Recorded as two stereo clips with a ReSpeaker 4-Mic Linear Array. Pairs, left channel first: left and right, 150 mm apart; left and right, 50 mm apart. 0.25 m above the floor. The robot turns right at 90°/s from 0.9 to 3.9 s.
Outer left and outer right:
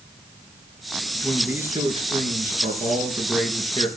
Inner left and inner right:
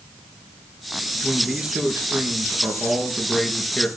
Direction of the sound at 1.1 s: 155° left.